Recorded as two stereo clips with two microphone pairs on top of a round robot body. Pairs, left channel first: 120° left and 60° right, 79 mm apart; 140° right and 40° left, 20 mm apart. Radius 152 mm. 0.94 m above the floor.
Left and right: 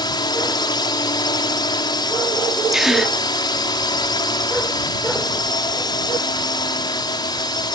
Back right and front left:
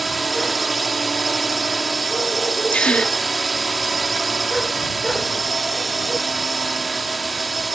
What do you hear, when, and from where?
0.0 s a drone: 130° left
2.7 s a gasp: 150° right